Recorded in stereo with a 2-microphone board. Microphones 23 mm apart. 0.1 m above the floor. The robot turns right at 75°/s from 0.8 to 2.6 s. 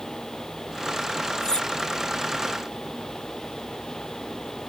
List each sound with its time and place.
1.4 s cutlery clinking: 25° left (ahead or behind); by 1.7 s 45° left (ahead or behind)